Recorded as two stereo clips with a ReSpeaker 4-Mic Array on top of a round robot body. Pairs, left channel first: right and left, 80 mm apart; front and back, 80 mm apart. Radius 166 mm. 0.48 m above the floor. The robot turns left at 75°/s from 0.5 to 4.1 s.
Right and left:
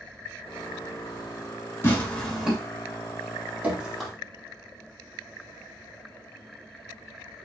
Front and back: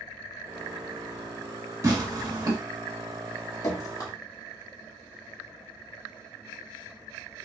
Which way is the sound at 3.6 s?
30° left.